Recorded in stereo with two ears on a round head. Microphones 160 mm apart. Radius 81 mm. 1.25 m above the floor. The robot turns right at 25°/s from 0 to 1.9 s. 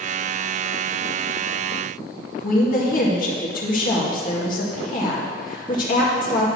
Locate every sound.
2.4 s a woman speaking: 50° left (ahead or behind), 1.9 m